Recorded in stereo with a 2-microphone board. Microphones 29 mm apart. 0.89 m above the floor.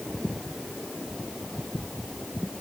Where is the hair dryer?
I don't hear a hair dryer.